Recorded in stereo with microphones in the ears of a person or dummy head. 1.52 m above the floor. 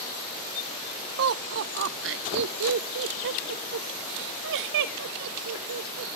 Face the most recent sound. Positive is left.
turn(degrees=-65)  # may be behind; listen again after turning